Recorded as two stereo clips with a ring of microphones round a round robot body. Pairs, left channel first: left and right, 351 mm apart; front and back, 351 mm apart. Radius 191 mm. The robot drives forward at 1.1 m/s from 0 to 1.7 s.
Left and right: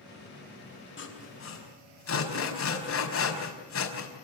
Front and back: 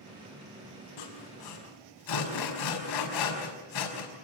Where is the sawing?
35° left, 5.5 m; by 4.1 s 40° left, 5 m.